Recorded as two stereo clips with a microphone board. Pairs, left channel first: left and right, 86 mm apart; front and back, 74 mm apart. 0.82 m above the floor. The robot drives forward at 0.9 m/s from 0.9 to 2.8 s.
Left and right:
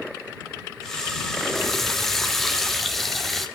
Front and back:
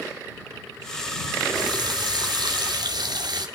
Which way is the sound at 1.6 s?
175° left.